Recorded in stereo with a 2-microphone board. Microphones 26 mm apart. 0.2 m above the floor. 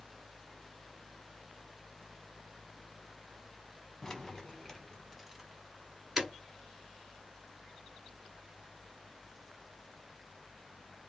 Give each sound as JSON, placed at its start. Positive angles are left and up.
{"t": 4.0, "sound": "keys jangling", "side_deg": 20, "distance_m": 1.1}